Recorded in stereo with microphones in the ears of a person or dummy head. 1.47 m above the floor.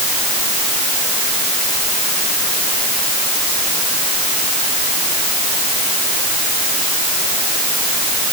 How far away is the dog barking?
No dog barking in this recording.